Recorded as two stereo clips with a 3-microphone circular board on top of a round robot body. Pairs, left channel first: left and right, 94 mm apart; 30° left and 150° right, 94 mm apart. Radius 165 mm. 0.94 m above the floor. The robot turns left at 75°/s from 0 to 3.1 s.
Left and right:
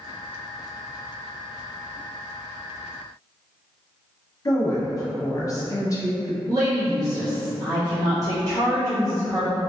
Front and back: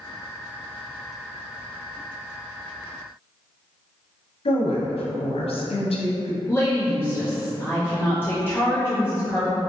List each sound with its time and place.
4.5 s a woman speaking: 35° left, 0.9 m
6.5 s a woman speaking: 40° right, 1.1 m